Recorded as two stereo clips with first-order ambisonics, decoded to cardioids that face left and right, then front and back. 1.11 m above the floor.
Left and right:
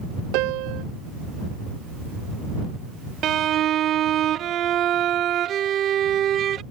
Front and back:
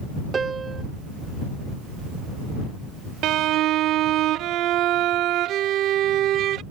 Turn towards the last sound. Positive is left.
turn(degrees=-140)